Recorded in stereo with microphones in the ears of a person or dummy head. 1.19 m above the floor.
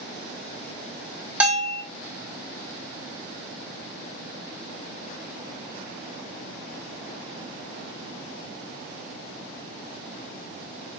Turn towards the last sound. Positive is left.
turn(degrees=-10)  # may be behind; listen again after turning